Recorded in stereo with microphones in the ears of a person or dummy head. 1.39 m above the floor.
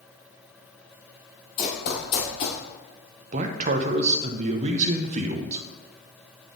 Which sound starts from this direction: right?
A man speaking, at 3.3 s.